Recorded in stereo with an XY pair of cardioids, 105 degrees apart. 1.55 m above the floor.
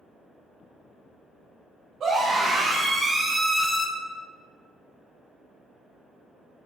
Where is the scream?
55° right, 1.6 m; by 3.9 s 30° left, 0.6 m.